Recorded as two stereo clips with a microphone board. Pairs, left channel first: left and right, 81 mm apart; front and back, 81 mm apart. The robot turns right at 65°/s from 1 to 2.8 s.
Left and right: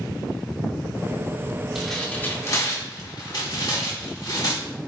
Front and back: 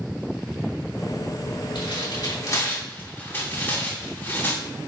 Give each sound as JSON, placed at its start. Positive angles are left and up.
{"t": 1.8, "sound": "tearing paper", "azimuth_deg": -5, "distance_m": 2.5}